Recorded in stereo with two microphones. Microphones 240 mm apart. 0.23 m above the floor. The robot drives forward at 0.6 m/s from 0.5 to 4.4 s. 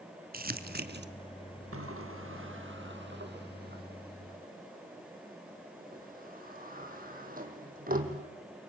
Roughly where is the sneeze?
I don't hear a sneeze.